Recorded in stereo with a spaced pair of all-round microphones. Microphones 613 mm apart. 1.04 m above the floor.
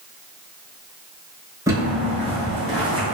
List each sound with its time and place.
1.7 s footsteps: 5° right (ahead or behind), 1.0 m; by 3.1 s 30° left (ahead or behind), 1.1 m